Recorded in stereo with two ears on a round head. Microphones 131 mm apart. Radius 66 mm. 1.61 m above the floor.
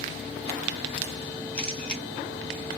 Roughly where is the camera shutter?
Centre.